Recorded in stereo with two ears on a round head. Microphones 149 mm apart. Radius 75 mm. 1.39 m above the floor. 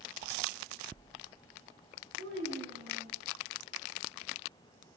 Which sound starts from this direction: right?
A child speaking, at 2.2 s.